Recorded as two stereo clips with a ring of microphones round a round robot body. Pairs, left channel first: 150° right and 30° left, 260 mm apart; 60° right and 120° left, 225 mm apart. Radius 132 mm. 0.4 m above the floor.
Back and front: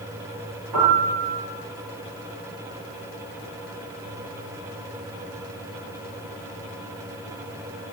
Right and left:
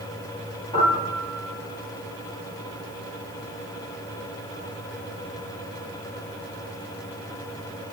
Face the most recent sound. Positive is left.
turn(degrees=10)